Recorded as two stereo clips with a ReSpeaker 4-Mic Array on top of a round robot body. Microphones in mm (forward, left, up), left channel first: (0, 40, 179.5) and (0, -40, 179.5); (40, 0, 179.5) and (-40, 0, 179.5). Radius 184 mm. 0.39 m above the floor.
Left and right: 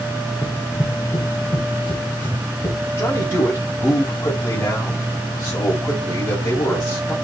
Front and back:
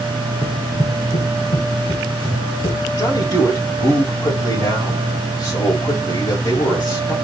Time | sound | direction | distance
0.4 | running footsteps | 30° left | 2.5 m
2.9 | a man speaking | 35° left | 3.5 m